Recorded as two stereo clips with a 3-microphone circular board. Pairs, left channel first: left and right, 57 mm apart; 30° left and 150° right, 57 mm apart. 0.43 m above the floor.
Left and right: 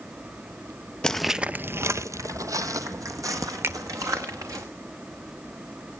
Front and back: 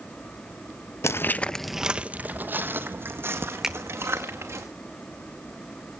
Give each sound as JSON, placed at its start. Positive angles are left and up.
{"t": 1.0, "sound": "footsteps", "azimuth_deg": 15, "distance_m": 0.6}
{"t": 3.6, "sound": "a finger snap", "azimuth_deg": -70, "distance_m": 0.8}